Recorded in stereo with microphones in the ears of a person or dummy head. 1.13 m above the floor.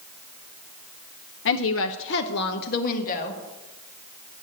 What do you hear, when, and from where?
1.4 s a woman speaking: 60° left (ahead or behind), 0.7 m; by 3.4 s 50° left (ahead or behind), 1.7 m